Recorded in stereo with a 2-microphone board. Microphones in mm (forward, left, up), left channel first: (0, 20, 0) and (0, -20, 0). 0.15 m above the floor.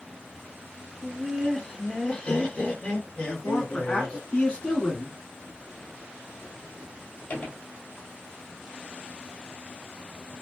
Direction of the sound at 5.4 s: 55° left (ahead or behind).